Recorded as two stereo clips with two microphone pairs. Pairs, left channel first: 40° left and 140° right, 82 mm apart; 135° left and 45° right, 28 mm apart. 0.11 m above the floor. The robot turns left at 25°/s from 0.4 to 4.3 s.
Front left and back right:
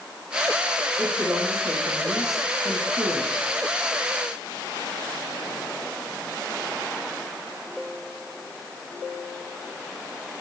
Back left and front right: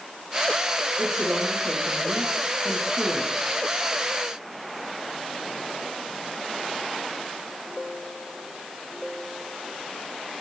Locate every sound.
1.0 s a woman speaking: 60° right, 4 m; by 3.5 s 125° right, 4 m